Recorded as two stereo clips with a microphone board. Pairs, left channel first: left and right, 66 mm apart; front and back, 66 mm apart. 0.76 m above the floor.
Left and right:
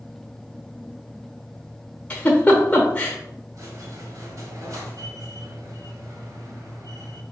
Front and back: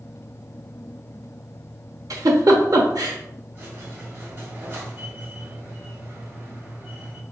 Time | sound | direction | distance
2.1 | a giggle | 155° left | 1.0 m
3.5 | a squeak | 125° right | 1.6 m